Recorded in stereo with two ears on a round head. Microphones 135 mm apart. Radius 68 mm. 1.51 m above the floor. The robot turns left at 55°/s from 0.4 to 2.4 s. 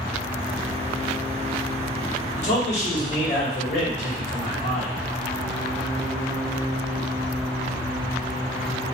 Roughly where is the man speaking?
Left.